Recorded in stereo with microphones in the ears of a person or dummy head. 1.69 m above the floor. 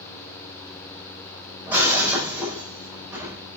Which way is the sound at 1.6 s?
10° right (ahead or behind).